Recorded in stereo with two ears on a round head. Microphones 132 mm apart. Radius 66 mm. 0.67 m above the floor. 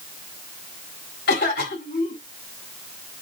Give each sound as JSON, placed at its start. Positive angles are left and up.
{"t": 1.3, "sound": "a cough", "side_deg": 75, "distance_m": 4.0}